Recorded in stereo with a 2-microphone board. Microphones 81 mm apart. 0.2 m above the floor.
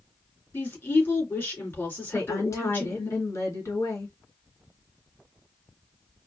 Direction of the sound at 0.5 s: 25° left (ahead or behind).